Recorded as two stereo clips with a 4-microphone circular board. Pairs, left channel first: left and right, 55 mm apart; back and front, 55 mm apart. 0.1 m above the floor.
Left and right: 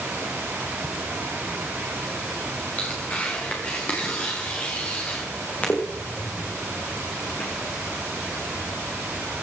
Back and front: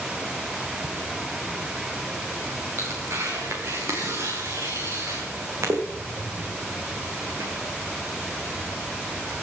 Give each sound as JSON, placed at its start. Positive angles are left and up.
{"t": 0.8, "sound": "laughter", "azimuth_deg": 95, "distance_m": 2.0}
{"t": 2.8, "sound": "tearing paper", "azimuth_deg": 25, "distance_m": 5.0}